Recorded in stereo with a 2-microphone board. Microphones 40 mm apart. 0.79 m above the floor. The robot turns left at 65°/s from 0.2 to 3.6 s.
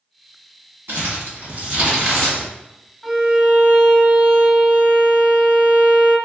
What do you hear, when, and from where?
0.9 s crumpling: 80° right, 1.7 m; by 2.5 s 15° left (ahead or behind), 1.7 m
3.0 s a violin: straight ahead, 0.5 m; by 6.2 s 40° right, 0.5 m